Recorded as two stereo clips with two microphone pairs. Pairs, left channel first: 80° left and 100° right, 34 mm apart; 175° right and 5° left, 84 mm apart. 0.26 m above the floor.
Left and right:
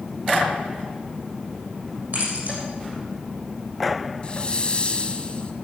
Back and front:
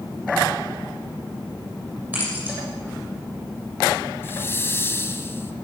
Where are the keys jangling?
65° right, 7.5 m.